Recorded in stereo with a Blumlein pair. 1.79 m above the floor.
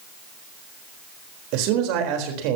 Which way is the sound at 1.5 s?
45° right.